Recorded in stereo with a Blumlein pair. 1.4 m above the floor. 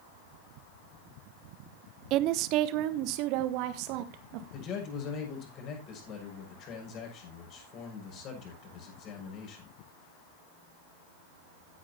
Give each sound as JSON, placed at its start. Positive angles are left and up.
{"t": 2.1, "sound": "a woman speaking", "azimuth_deg": -40, "distance_m": 0.8}
{"t": 4.5, "sound": "a man speaking", "azimuth_deg": 35, "distance_m": 6.5}